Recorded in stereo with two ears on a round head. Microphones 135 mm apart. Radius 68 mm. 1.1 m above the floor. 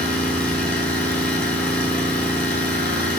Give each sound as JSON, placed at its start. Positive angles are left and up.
{"t": 0.0, "sound": "an engine running", "side_deg": 15, "distance_m": 4.0}